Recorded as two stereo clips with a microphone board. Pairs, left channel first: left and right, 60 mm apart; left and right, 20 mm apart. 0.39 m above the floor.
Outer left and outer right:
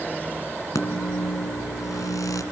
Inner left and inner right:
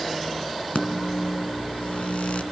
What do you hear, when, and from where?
0.8 s a microwave: 70° left (ahead or behind), 3 m